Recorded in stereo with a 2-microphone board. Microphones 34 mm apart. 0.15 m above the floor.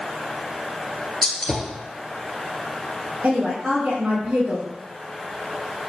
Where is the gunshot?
10° left (ahead or behind), 1.6 m.